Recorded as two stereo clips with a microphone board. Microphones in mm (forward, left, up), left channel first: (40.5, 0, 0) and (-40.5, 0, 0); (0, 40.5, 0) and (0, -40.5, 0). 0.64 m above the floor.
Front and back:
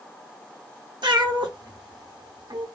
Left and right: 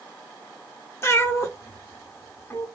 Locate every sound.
1.0 s a cat meowing: 150° left, 0.5 m